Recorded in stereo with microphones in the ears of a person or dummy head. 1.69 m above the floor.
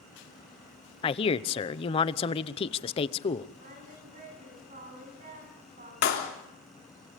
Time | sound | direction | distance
1.0 | a man speaking | 35° left (ahead or behind) | 0.9 m
3.6 | singing | 40° right (ahead or behind) | 9.5 m
6.0 | a clap | 55° left (ahead or behind) | 3.5 m